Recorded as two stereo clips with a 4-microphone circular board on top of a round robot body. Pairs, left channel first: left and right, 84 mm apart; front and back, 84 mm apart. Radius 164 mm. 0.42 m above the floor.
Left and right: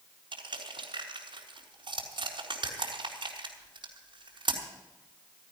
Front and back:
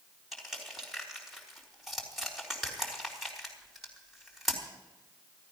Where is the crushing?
90° right, 4 m.